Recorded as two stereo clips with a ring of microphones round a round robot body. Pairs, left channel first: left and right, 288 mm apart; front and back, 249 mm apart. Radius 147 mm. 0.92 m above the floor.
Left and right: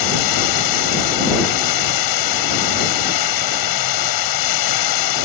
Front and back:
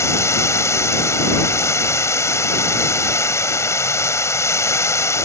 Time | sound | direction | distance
0.0 | running water | 80° left | ?